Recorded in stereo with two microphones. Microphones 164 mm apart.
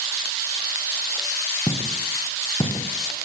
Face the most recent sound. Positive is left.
turn(degrees=25)  # may be behind; listen again after turning